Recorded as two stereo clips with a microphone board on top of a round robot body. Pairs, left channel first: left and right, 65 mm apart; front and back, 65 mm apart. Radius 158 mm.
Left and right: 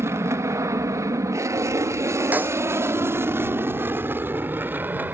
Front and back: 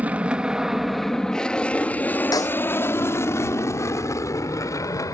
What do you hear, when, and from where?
0.0 s an aircraft: 120° right; by 5.2 s 30° right
2.3 s a snare drum: 25° right